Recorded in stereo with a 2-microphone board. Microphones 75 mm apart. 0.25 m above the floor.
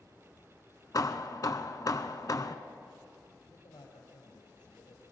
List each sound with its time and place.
0.9 s hammering: 50° left (ahead or behind), 1.0 m
3.5 s a man speaking: 75° left (ahead or behind), 6 m